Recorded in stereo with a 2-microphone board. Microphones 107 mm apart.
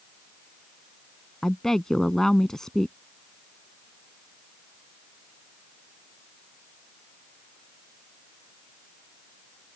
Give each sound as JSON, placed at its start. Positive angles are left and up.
{"t": 1.4, "sound": "a woman speaking", "side_deg": 5}